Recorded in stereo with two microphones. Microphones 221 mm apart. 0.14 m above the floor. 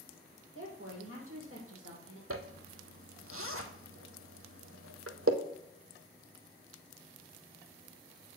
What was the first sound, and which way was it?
A woman speaking, 70° right (ahead or behind).